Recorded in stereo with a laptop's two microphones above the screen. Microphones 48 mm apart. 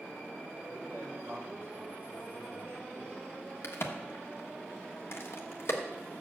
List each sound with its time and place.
0.6 s a man speaking: 60° right (ahead or behind), 3 m
3.6 s a crack: 60° left (ahead or behind), 1.2 m